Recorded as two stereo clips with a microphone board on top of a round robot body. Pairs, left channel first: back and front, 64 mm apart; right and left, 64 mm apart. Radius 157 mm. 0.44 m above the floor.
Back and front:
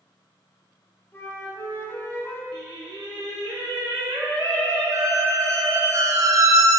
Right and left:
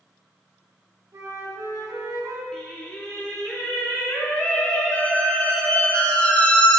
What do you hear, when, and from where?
1.1 s a flute: 125° left, 1.8 m
2.5 s singing: 10° right, 1.0 m
4.9 s a squeak: 20° right, 0.9 m